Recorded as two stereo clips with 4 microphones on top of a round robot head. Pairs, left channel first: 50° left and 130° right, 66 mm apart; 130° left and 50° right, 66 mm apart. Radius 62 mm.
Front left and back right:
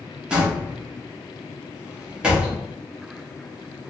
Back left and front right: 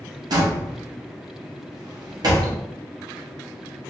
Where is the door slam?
55° right, 1.2 m.